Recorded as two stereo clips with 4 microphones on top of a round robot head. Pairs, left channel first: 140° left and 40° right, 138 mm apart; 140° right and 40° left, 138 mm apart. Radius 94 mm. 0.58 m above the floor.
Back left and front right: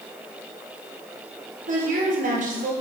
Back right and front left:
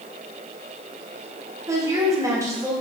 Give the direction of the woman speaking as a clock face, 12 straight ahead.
1 o'clock.